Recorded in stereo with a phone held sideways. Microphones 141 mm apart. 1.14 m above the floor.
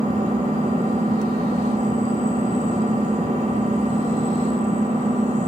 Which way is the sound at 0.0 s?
50° right (ahead or behind).